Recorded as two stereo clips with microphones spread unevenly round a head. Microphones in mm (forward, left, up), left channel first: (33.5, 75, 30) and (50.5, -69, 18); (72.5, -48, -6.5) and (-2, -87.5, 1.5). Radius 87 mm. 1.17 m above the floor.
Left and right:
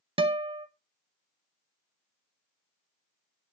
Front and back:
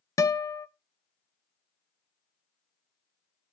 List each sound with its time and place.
0.2 s a guitar: 30° right, 0.9 m